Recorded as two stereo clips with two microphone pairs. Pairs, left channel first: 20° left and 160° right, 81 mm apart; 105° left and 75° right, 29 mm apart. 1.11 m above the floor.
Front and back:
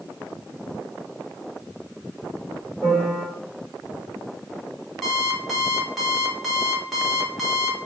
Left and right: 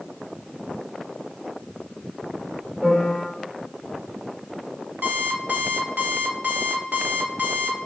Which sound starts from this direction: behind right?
A piano, at 2.8 s.